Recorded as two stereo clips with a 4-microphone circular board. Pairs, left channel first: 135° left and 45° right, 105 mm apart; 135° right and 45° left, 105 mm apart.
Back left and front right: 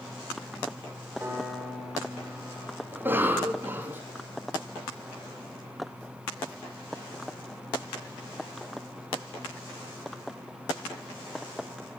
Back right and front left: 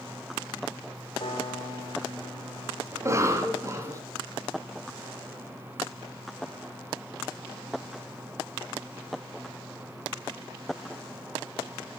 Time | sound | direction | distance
1.2 | a piano | 115° right | 3 m
2.9 | a cough | 10° left | 1.2 m